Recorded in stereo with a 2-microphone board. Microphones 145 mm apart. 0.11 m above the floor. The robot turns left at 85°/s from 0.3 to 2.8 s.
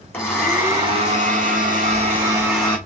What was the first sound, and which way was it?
A blender, 15° left.